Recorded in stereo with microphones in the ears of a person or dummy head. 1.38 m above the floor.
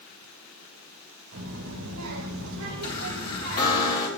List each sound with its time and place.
1.3 s a child speaking: 85° right, 4.5 m; by 3.8 s 70° right (ahead or behind), 3.5 m
2.8 s a chime: 30° left (ahead or behind), 4 m